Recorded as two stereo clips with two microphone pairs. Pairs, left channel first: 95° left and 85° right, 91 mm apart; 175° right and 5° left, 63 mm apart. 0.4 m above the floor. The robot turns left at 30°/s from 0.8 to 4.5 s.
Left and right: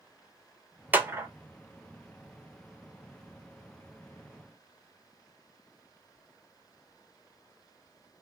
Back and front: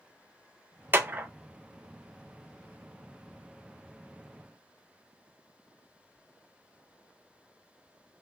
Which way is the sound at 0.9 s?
25° right.